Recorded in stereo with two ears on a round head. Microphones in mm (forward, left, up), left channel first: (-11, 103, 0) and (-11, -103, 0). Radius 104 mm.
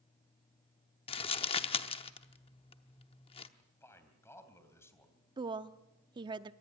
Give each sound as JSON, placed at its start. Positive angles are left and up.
{"t": 1.1, "sound": "crumpling", "side_deg": 25, "distance_m": 0.8}
{"t": 3.6, "sound": "a man speaking", "side_deg": 10, "distance_m": 3.0}
{"t": 5.4, "sound": "a woman speaking", "side_deg": -20, "distance_m": 0.6}